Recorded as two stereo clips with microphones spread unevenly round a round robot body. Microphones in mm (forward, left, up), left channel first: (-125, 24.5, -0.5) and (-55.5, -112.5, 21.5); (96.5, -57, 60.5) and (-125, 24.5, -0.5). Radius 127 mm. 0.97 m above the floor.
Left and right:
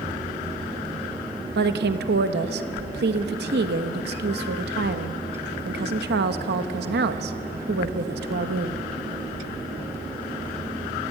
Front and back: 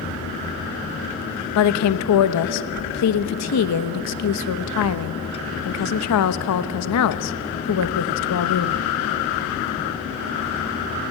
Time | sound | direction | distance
1.6 | a woman speaking | 40° right | 1.1 m